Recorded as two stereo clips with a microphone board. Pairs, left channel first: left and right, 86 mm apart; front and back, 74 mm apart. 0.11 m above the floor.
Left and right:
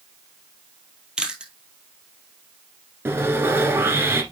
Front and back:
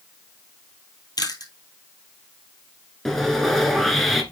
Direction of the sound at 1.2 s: 10° right.